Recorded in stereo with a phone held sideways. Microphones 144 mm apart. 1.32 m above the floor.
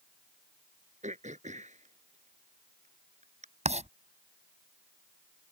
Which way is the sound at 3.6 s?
50° right (ahead or behind).